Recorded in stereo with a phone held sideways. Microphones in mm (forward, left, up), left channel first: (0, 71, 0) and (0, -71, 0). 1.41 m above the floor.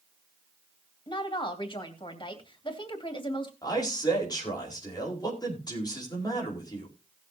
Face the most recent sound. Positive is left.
turn(degrees=30)  # may be behind; listen again after turning